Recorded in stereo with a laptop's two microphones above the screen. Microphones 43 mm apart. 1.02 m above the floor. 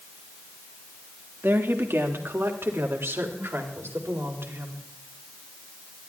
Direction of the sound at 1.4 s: 65° right (ahead or behind).